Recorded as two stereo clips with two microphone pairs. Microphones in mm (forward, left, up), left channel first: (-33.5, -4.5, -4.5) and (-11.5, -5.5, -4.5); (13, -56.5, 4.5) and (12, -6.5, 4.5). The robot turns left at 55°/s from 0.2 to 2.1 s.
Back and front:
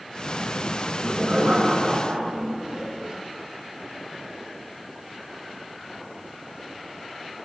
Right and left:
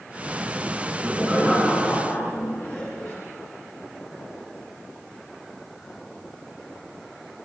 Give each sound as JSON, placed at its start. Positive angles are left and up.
{"t": 0.8, "sound": "laughter", "azimuth_deg": 50, "distance_m": 5.5}